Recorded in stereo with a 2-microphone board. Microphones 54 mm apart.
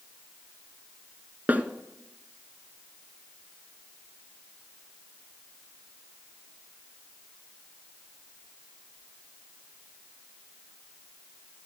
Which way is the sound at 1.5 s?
30° right (ahead or behind).